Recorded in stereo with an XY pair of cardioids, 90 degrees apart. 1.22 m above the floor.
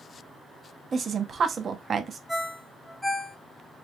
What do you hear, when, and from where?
0.9 s a woman speaking: 50° right, 0.7 m
2.3 s a ringtone: 10° left, 0.7 m